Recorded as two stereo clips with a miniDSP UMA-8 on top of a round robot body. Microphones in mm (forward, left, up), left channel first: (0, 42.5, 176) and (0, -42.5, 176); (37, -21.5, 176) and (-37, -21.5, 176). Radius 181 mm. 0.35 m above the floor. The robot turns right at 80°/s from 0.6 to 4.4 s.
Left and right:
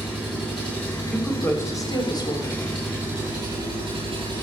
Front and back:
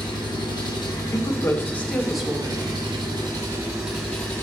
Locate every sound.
0.0 s an engine running: straight ahead, 4.5 m; by 4.4 s 55° right, 4.5 m
1.1 s a woman speaking: 10° left, 1.8 m; by 2.6 s 130° left, 1.8 m